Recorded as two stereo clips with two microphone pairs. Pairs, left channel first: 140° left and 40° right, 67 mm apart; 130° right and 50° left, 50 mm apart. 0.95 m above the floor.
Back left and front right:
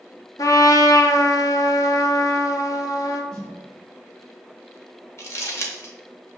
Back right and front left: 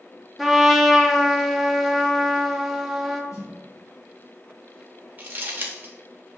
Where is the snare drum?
135° right, 1.1 m.